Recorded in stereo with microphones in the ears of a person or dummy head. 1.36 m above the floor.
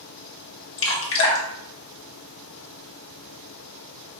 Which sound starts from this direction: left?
Dripping, at 0.8 s.